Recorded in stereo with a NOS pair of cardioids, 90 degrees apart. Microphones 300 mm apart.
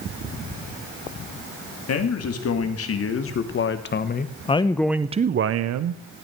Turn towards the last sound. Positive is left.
turn(degrees=-70)